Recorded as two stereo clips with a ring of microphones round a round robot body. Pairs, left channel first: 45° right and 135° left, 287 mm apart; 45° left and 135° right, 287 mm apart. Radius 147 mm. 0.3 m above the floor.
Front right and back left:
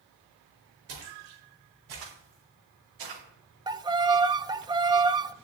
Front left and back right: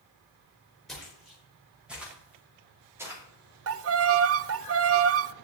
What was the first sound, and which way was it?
Footsteps, 135° left.